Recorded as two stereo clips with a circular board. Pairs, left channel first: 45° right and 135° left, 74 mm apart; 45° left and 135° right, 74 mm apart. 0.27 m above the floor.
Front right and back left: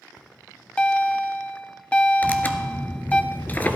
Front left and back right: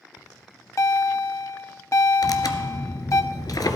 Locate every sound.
0.2 s a bell: 25° left, 0.6 m
2.2 s tearing paper: 20° left, 0.9 m